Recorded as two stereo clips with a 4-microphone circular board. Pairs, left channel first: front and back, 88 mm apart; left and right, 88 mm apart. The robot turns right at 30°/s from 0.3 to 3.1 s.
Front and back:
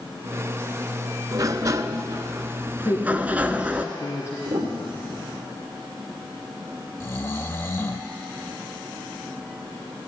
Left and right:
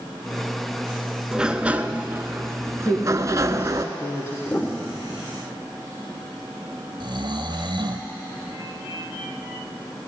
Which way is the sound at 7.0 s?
60° right.